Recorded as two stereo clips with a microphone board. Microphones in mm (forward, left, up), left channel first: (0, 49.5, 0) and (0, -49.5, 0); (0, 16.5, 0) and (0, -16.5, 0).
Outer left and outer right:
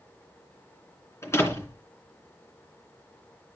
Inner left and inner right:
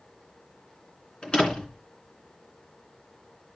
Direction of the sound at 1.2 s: 30° left (ahead or behind).